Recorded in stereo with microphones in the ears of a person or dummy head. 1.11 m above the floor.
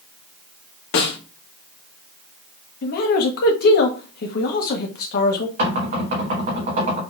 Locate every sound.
0.9 s a snare drum: 70° left (ahead or behind), 1.2 m
2.8 s a man speaking: 55° left (ahead or behind), 1.0 m
5.6 s knocking: 45° right (ahead or behind), 2 m